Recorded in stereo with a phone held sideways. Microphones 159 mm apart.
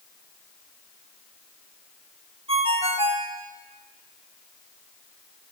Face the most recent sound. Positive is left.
turn(degrees=-35)  # may be behind; listen again after turning